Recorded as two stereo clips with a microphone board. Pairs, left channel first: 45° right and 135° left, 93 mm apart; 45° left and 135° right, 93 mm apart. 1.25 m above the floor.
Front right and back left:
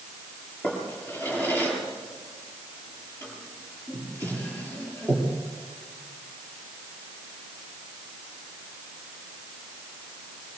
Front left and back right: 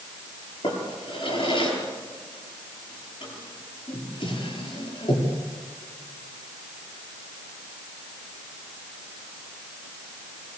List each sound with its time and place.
0.6 s a drawer: 25° left, 8.5 m